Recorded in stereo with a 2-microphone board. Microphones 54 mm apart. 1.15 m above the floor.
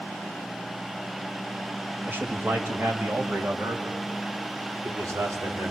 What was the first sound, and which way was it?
A man speaking, 40° right (ahead or behind).